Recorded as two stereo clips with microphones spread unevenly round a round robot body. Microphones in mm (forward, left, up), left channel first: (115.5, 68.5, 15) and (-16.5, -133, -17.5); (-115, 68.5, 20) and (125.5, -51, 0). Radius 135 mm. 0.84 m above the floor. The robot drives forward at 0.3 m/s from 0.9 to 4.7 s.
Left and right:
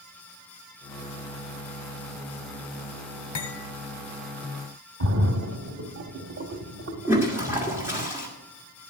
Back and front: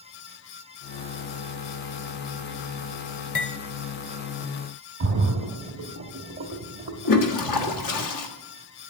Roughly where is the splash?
Right.